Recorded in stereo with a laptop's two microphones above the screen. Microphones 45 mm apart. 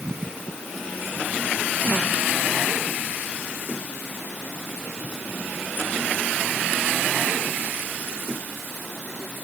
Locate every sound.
Only background noise.